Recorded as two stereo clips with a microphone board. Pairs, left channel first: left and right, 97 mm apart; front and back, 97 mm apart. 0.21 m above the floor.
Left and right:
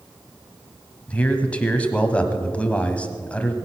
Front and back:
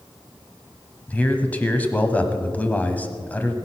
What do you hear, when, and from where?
1.1 s a man speaking: 40° left, 1.2 m